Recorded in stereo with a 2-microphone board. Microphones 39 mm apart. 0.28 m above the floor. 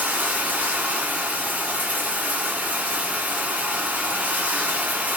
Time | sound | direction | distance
0.0 | running water | 45° right (ahead or behind) | 1.5 m